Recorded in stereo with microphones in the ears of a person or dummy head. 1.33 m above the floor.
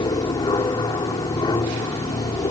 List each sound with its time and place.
0.0 s an aircraft: 20° left (ahead or behind)